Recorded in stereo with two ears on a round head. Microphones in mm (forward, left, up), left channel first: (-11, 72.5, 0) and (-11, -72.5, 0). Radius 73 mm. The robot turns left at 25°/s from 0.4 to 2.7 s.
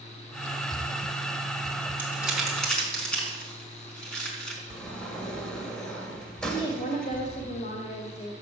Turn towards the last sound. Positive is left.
turn(degrees=40)  # may be behind; listen again after turning